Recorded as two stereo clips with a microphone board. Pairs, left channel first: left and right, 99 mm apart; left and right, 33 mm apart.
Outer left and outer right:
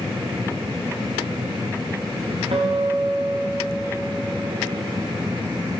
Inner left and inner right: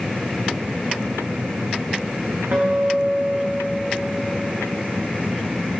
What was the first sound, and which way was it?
A guitar, 65° right (ahead or behind).